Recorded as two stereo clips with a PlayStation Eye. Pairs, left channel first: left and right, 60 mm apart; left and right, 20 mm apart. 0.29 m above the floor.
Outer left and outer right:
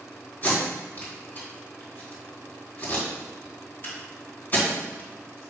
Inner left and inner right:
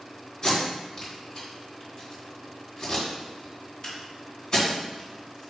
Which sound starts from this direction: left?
Tape being pulled, at 0.4 s.